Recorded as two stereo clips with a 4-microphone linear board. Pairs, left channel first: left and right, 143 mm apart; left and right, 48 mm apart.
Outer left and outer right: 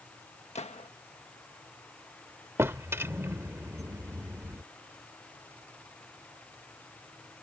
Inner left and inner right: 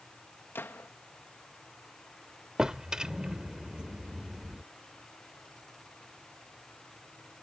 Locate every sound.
0.6 s a gunshot: 50° left (ahead or behind)
2.6 s a drawer: 20° right (ahead or behind)